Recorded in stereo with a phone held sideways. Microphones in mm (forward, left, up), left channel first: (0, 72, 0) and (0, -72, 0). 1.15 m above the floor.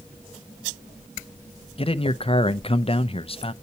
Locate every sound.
1.8 s a man speaking: 40° left (ahead or behind), 0.5 m